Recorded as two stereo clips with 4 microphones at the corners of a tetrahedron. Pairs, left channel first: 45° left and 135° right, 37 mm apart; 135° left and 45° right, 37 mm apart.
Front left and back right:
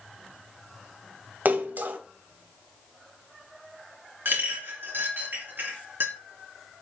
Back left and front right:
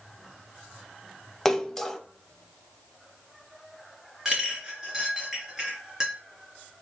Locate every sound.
1.4 s a splash: 145° right, 0.7 m
4.2 s a clink: 115° right, 2.5 m